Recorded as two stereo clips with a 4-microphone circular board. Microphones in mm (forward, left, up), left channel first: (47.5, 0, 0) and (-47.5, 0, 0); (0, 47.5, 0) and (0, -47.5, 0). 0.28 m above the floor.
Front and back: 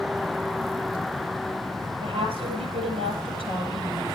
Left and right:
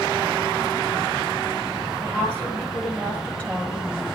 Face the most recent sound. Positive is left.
turn(degrees=165)